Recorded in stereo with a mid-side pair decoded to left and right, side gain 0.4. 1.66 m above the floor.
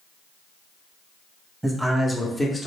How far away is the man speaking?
About 1.1 m.